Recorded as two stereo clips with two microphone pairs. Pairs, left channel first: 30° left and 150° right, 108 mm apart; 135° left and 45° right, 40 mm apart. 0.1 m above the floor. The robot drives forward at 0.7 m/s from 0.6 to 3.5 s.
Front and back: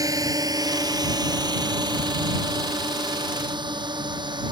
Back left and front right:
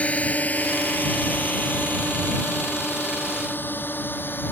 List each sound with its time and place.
0.0 s a drone: 175° left; by 4.5 s 170° left